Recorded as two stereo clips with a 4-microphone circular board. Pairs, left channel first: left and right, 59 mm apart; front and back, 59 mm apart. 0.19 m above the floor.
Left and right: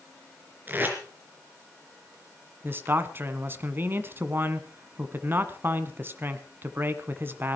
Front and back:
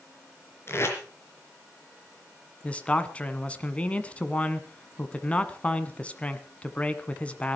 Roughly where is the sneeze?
No sneeze in this recording.